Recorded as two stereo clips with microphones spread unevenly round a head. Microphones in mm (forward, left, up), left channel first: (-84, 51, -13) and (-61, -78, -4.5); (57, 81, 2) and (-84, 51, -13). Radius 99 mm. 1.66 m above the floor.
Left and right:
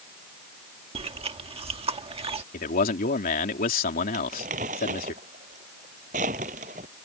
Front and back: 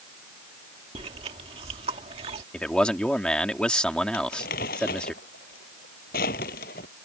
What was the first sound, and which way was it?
Chewing, 110° right.